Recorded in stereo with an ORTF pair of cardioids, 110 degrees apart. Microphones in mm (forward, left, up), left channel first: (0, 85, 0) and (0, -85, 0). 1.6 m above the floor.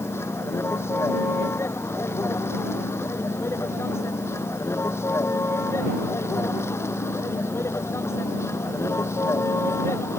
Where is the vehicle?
15° left.